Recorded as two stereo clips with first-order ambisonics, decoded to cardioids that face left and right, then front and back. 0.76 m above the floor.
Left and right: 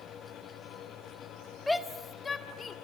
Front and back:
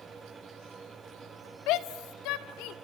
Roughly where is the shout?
Ahead.